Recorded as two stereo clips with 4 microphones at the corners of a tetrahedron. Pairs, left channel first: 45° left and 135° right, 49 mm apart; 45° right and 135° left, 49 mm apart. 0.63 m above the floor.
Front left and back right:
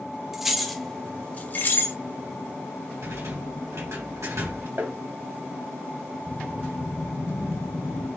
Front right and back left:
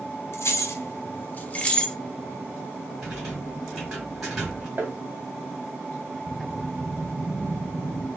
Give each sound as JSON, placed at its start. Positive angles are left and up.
{"t": 0.3, "sound": "keys jangling", "azimuth_deg": -50, "distance_m": 0.8}
{"t": 3.0, "sound": "a rattle", "azimuth_deg": -145, "distance_m": 2.5}
{"t": 4.8, "sound": "tapping", "azimuth_deg": -170, "distance_m": 1.1}
{"t": 6.3, "sound": "a whoosh", "azimuth_deg": -60, "distance_m": 0.9}